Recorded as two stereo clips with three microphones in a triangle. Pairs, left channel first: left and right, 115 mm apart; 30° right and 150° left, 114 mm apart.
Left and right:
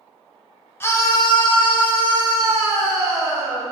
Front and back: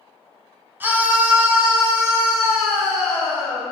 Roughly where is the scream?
Behind left.